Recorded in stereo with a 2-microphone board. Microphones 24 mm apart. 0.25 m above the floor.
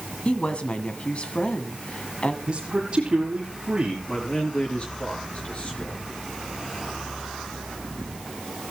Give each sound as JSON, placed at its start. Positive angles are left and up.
{"t": 0.2, "sound": "a woman speaking", "side_deg": 50, "distance_m": 1.9}
{"t": 2.5, "sound": "a man speaking", "side_deg": -40, "distance_m": 6.5}
{"t": 4.1, "sound": "a man speaking", "side_deg": 55, "distance_m": 5.0}